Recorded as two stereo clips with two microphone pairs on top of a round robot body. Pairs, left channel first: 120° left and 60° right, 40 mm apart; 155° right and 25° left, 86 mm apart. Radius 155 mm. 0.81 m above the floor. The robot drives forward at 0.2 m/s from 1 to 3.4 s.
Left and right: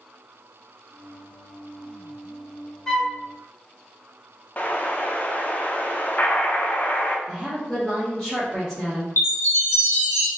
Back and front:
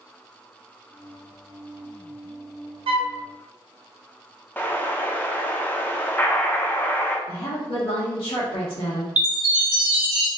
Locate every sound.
2.9 s a flute: 40° left, 0.5 m; by 3.2 s 45° left, 0.5 m
4.6 s an explosion: 145° left, 0.8 m
7.3 s a woman speaking: 175° right, 1.5 m
9.2 s a chime: 100° left, 1.2 m